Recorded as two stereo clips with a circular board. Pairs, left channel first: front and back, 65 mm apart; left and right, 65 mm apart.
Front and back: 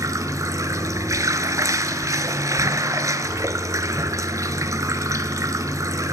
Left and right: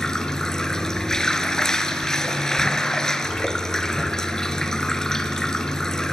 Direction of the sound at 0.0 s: 170° left.